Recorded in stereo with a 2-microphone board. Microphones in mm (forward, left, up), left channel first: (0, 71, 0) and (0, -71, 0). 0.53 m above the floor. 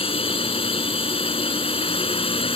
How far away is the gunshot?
I don't hear a gunshot.